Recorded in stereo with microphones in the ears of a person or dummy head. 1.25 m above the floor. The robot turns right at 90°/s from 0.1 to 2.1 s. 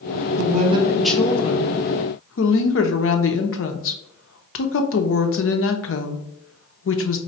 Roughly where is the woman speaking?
Ahead right.